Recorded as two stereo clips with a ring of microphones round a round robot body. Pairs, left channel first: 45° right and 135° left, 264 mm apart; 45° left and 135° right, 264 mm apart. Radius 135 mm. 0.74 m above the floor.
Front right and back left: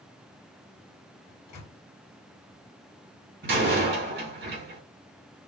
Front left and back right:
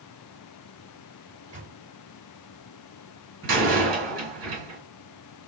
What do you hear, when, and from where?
1.3 s a microwave: 70° right, 1.9 m
3.4 s a door slam: 175° right, 2 m